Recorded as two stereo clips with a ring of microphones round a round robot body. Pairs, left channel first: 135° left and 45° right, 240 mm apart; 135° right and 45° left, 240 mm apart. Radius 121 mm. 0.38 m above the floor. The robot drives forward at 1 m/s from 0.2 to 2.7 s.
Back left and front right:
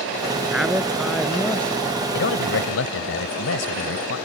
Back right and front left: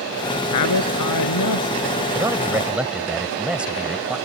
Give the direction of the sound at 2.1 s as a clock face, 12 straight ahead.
8 o'clock.